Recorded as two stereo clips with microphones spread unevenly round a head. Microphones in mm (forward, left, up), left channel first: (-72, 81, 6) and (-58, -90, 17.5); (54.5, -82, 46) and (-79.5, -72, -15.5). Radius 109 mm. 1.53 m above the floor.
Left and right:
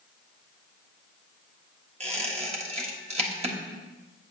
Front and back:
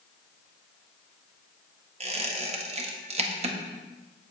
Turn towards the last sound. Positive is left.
turn(degrees=-135)